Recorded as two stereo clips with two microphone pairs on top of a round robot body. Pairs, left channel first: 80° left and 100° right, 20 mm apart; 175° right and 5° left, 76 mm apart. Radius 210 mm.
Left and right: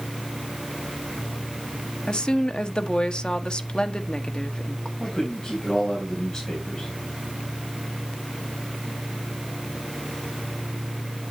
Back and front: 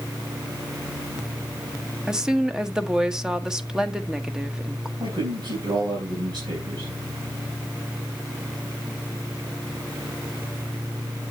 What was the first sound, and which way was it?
A woman speaking, 85° left.